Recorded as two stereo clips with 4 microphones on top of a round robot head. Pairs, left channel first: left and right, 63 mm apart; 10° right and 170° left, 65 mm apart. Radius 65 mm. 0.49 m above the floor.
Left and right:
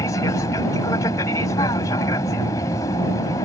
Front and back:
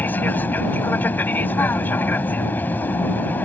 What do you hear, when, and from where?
0.0 s an aircraft: 50° left